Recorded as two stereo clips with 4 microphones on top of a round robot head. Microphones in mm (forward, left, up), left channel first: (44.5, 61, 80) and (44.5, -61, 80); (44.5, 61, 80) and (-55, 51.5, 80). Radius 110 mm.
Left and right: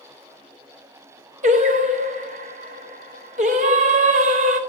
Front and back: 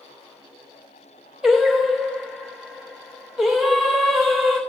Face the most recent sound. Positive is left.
turn(degrees=-90)